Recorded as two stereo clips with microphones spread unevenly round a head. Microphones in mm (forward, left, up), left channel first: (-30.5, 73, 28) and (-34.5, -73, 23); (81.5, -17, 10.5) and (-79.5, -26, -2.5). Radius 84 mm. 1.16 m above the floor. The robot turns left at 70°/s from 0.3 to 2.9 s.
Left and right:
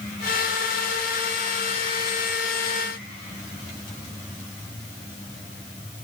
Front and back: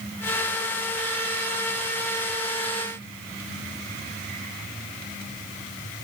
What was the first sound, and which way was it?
Only background noise.